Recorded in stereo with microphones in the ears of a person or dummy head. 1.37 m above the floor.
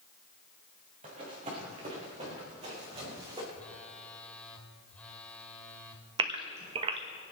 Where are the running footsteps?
40° right (ahead or behind), 6 m; by 3.4 s 30° right (ahead or behind), 5 m.